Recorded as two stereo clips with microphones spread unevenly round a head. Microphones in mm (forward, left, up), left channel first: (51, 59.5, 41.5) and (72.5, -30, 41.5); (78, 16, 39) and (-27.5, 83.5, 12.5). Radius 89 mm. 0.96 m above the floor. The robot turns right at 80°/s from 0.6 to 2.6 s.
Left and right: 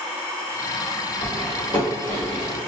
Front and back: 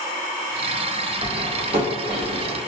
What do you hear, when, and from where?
1.2 s cutlery clinking: 140° left, 2.0 m; by 2.6 s 110° right, 2.0 m